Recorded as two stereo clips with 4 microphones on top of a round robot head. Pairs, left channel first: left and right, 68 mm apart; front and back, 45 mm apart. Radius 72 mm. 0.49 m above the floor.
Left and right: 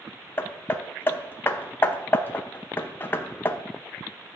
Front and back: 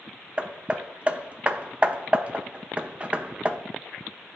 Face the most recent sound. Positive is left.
turn(degrees=135)